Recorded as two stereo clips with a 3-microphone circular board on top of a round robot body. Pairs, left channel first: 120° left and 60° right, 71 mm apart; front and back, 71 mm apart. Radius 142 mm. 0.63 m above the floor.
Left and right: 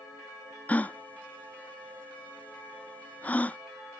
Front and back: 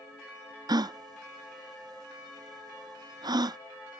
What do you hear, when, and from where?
0.7 s a gasp: 175° right